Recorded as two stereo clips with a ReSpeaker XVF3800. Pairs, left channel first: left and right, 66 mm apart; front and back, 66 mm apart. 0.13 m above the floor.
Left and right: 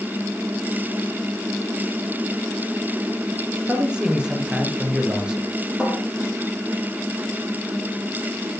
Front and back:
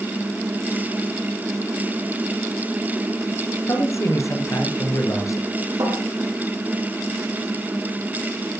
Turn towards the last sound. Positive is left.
turn(degrees=-170)